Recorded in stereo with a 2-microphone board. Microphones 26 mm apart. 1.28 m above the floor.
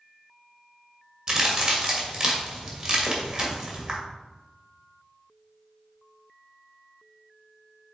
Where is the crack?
35° right (ahead or behind), 1.9 m.